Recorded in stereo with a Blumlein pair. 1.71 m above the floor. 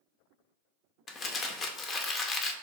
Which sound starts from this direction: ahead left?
Crumpling, at 1.1 s.